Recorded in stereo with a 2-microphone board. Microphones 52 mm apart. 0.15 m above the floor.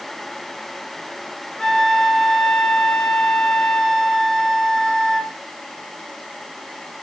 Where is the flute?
15° left (ahead or behind), 1.2 m.